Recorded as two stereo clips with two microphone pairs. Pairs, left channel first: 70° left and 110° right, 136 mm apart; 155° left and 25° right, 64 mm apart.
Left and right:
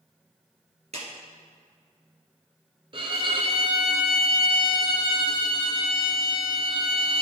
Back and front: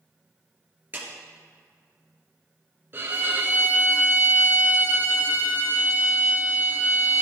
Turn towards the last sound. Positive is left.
turn(degrees=-70)